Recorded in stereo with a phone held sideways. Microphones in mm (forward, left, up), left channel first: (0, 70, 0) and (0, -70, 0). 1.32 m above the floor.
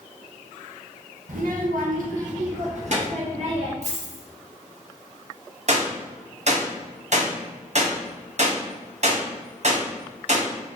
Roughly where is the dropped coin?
Right.